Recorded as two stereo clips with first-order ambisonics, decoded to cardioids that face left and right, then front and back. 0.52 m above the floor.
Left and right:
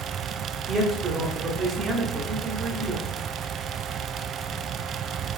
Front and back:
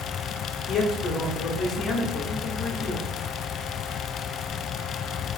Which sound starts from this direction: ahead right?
A man speaking, at 0.7 s.